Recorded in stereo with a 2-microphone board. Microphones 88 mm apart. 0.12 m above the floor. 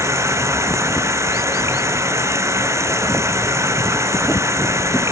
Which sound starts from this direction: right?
Running water, at 0.0 s.